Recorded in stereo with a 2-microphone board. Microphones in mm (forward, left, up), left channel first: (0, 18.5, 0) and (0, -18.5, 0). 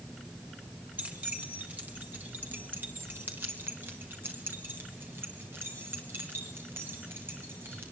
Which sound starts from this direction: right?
Keys jangling, at 1.0 s.